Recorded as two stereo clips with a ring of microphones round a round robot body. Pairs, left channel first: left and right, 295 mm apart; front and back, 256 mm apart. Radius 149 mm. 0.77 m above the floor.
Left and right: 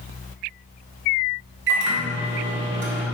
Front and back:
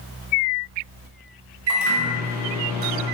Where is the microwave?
140° right, 1.5 m.